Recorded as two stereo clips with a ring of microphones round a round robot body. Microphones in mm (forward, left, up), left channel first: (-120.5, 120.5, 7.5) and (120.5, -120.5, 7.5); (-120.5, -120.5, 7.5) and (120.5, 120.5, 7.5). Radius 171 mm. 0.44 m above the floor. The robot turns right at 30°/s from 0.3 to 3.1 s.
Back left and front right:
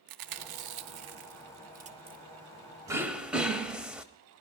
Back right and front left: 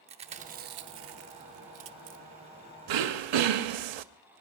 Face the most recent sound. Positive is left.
turn(degrees=40)